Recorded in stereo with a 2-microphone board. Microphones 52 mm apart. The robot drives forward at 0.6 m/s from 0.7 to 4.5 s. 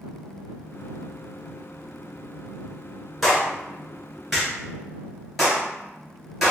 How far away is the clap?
About 2.0 m.